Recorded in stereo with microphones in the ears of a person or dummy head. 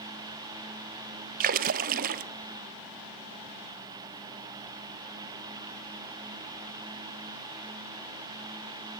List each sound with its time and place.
1.4 s a splash: 45° right (ahead or behind), 0.7 m